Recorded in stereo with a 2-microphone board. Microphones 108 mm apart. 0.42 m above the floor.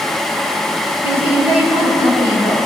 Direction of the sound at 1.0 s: 55° right (ahead or behind).